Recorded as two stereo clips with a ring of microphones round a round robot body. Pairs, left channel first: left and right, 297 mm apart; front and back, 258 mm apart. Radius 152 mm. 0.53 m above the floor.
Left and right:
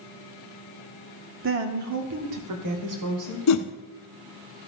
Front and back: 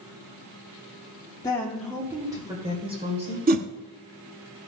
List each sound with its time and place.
1.4 s a woman speaking: 70° right, 1.0 m; by 3.4 s 110° right, 3 m
3.5 s a whoosh: 125° left, 0.9 m